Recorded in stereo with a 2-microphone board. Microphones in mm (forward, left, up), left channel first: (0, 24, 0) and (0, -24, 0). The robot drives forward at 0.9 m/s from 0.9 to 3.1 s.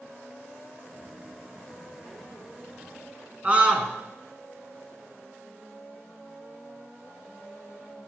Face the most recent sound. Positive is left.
turn(degrees=-25)  # may be behind; listen again after turning